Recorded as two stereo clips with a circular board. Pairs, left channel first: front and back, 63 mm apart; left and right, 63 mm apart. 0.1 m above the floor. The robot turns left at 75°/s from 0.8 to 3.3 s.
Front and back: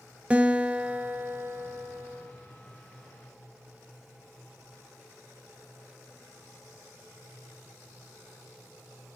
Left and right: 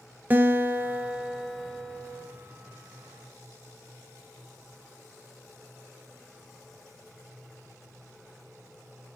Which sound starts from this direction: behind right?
A guitar, at 0.3 s.